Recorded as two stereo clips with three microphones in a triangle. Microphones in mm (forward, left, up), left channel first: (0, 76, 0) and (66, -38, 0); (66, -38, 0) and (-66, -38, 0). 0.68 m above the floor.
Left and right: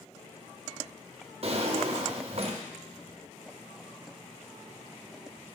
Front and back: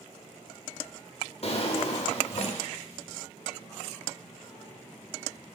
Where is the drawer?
30° right, 0.5 m.